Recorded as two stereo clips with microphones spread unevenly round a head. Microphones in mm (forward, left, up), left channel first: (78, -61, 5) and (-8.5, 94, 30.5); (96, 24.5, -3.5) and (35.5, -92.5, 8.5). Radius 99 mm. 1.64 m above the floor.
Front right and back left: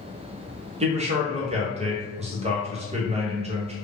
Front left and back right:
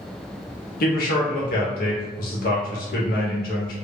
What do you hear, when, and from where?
0.8 s a man speaking: 65° left, 0.9 m